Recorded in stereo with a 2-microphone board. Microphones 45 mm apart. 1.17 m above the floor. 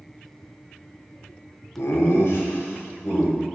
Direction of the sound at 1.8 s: 70° left (ahead or behind).